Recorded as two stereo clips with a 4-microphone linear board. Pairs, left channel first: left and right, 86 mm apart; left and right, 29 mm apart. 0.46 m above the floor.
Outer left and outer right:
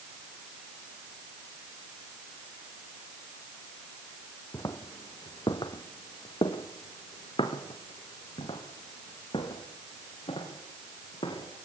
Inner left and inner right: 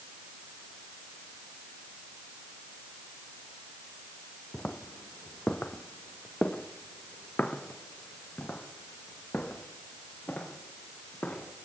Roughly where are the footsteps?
Left.